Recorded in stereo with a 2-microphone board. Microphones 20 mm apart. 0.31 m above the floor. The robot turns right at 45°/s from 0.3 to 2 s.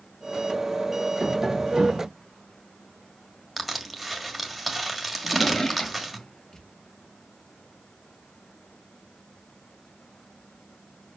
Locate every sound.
1.2 s tapping: 165° right, 1.1 m; by 2.1 s 125° right, 1.1 m
3.6 s crushing: centre (ahead or behind), 1.4 m
5.2 s a drawer: 30° left (ahead or behind), 1.8 m